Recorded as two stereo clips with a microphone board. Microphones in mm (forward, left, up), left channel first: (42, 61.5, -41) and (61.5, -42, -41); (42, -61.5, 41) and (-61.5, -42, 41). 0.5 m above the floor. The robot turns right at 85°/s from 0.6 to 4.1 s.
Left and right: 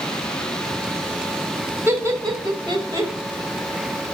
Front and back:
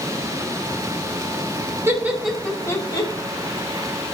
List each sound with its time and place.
1.9 s laughter: 135° right, 1.3 m; by 3.1 s 30° right, 1.3 m